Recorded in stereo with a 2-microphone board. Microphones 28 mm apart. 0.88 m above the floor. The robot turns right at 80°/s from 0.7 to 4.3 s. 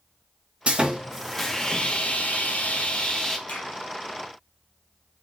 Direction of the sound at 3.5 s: 60° left (ahead or behind).